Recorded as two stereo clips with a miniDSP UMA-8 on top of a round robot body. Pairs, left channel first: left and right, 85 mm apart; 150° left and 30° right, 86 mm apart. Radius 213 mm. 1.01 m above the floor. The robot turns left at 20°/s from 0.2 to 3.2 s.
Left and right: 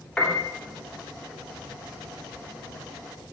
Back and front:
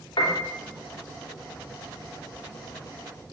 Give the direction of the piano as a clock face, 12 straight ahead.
6 o'clock.